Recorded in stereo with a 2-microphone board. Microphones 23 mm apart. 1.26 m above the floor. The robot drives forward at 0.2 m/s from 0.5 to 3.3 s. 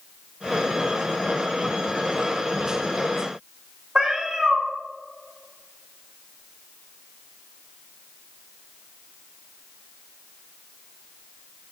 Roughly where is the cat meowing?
Right.